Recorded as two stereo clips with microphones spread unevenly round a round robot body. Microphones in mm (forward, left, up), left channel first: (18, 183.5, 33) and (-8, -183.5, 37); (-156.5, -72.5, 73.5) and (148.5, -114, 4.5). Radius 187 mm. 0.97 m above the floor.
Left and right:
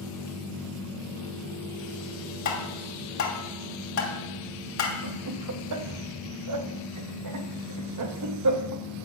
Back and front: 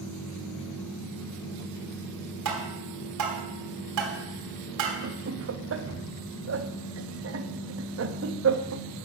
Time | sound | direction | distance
2.5 | tapping | 30° left | 2.5 m
5.0 | laughter | 50° right | 1.2 m